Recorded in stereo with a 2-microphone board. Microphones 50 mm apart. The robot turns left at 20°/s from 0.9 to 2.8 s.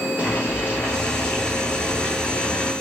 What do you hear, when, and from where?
0.2 s boiling: 60° left, 1.7 m; by 2.7 s 25° left, 1.7 m